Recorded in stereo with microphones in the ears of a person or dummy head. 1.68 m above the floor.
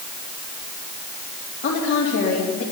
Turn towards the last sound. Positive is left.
turn(degrees=55)  # may be behind; listen again after turning